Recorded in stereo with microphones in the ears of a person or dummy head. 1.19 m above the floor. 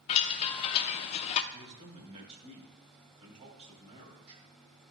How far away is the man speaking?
About 2.5 m.